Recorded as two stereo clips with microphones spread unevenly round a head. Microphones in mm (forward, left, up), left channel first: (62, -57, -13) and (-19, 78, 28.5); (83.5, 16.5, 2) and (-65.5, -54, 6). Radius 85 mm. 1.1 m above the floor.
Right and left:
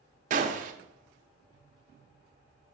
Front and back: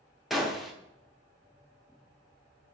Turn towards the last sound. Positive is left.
turn(degrees=115)